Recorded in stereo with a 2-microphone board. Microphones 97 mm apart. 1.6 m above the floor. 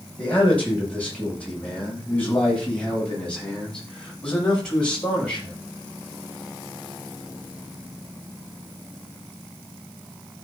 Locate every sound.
0.2 s a man speaking: 15° left (ahead or behind), 7.5 m; by 5.5 s 10° left (ahead or behind), 12 m